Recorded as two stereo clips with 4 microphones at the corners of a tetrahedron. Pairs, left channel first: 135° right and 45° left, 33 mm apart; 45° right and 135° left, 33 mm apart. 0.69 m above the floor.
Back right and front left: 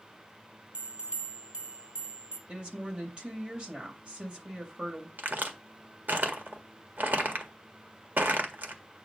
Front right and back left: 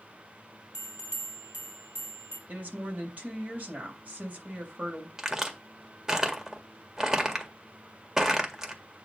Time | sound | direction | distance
0.7 | a bell | 100° left | 3 m
2.5 | a woman speaking | 100° left | 3 m
5.2 | a crack | 65° left | 1.7 m